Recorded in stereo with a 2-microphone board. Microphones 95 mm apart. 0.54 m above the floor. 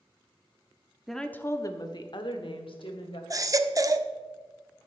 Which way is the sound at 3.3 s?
40° right (ahead or behind).